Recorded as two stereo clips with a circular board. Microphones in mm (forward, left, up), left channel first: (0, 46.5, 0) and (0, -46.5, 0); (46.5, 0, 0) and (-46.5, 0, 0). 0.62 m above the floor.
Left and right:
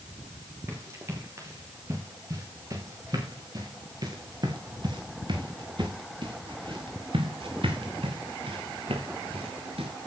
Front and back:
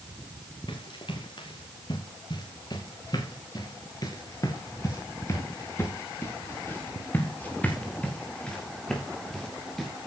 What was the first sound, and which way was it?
Running footsteps, 30° right.